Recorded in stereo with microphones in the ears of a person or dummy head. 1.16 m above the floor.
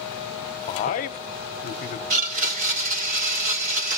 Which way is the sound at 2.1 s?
50° right (ahead or behind).